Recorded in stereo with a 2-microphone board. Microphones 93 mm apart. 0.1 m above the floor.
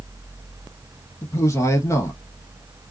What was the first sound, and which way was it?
A man speaking, 35° left (ahead or behind).